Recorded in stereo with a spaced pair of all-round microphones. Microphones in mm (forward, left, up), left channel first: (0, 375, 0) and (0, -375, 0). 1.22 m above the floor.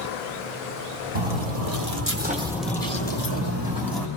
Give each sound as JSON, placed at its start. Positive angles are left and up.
{"t": 1.1, "sound": "footsteps", "side_deg": -45, "distance_m": 1.7}